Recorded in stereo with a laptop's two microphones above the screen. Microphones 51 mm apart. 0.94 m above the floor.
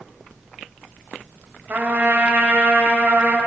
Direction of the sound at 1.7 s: 35° right (ahead or behind).